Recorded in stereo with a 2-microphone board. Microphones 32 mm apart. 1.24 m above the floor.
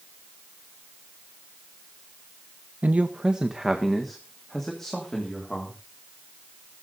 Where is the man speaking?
60° right (ahead or behind), 0.9 m; by 5.8 s 15° left (ahead or behind), 3.5 m.